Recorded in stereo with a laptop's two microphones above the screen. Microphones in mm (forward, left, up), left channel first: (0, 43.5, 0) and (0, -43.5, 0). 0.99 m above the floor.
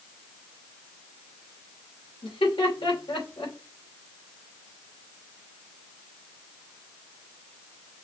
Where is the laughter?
80° left, 3 m.